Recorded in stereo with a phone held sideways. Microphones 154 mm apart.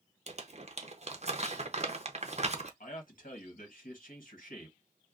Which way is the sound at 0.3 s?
45° right (ahead or behind).